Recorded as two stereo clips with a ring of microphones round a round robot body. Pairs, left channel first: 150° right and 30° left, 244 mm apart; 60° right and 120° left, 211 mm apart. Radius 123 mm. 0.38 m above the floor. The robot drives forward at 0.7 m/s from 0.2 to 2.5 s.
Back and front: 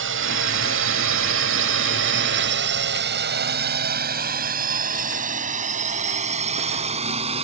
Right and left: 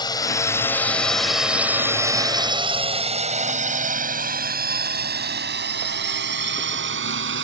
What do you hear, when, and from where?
0.0 s a drone: 5° left; by 7.5 s 95° left